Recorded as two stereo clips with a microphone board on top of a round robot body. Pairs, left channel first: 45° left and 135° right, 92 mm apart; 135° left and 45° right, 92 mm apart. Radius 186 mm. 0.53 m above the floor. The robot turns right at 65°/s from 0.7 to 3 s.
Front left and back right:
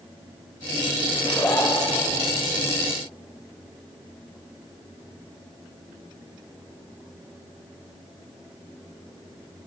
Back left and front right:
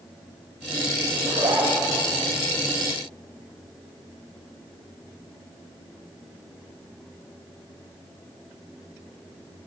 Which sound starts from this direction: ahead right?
A zipper, at 1.1 s.